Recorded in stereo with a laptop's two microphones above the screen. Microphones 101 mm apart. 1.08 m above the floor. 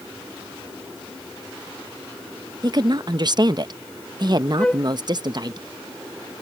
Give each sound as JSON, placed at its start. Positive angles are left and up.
{"t": 2.6, "sound": "a woman speaking", "side_deg": -45}
{"t": 4.6, "sound": "a flute", "side_deg": 10}